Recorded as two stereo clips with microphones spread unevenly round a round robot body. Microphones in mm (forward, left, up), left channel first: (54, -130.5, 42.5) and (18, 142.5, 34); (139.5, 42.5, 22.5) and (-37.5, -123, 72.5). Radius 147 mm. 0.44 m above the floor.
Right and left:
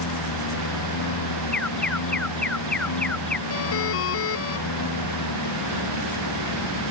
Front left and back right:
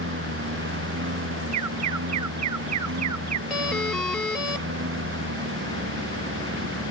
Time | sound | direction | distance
0.0 | a lawn mower | 100° right | ?
1.5 | an alarm | 170° right | ?
3.5 | a doorbell | 45° right | ?